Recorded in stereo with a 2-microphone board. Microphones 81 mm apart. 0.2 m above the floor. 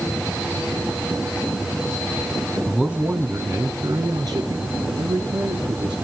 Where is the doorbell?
I don't hear a doorbell.